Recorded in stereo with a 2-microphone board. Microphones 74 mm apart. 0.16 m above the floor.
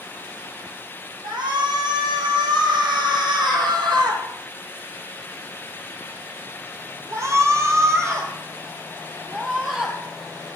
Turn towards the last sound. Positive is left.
turn(degrees=-10)  # may be behind; listen again after turning